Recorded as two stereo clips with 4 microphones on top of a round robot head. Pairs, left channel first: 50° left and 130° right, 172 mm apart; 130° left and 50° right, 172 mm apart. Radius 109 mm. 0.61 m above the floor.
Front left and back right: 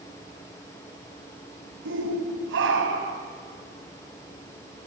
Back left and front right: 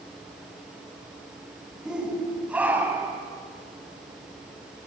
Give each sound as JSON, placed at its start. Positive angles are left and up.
{"t": 1.9, "sound": "a shout", "azimuth_deg": -135, "distance_m": 5.0}